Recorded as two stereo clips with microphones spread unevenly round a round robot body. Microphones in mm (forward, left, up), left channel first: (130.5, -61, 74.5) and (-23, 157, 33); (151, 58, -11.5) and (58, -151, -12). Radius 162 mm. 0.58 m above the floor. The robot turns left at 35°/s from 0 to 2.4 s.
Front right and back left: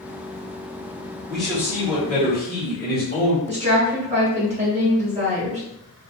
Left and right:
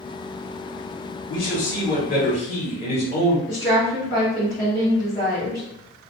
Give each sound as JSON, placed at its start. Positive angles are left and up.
{"t": 1.3, "sound": "a man speaking", "azimuth_deg": 40, "distance_m": 1.5}
{"t": 3.5, "sound": "a woman speaking", "azimuth_deg": 125, "distance_m": 1.3}